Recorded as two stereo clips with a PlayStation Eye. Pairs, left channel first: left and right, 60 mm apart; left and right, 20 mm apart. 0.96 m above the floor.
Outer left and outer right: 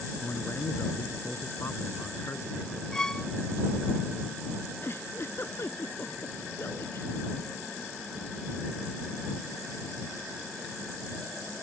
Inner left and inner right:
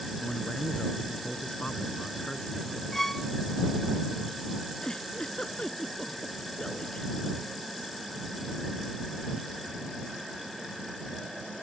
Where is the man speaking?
45° left (ahead or behind).